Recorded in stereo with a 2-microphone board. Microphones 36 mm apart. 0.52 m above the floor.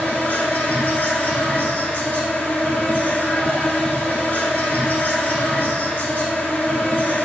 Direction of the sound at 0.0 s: 60° left (ahead or behind).